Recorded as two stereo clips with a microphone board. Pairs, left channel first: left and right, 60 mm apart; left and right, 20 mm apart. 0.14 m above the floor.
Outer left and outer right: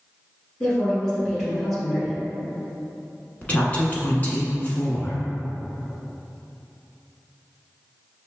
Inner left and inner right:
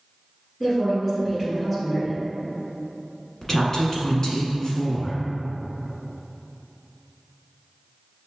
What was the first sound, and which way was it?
A woman speaking, 5° left (ahead or behind).